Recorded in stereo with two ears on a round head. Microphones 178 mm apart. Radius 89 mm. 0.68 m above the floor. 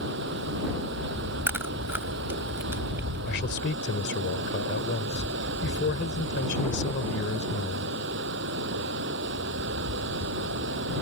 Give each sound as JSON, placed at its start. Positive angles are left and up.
{"t": 0.0, "sound": "running water", "side_deg": -60}
{"t": 1.5, "sound": "chewing", "side_deg": -10}
{"t": 3.3, "sound": "a man speaking", "side_deg": 60}